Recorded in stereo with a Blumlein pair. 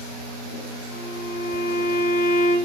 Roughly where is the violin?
Ahead left.